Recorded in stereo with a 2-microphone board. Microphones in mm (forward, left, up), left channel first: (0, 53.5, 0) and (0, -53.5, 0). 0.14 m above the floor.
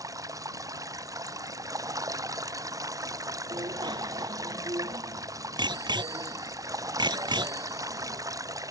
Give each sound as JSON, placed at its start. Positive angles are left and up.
{"t": 0.0, "sound": "running water", "side_deg": -35}
{"t": 3.5, "sound": "a bicycle bell", "side_deg": -45}